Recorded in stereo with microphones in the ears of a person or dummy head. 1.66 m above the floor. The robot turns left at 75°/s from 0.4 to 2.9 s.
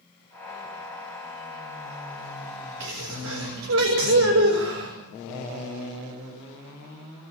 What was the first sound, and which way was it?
A sneeze, 65° right (ahead or behind).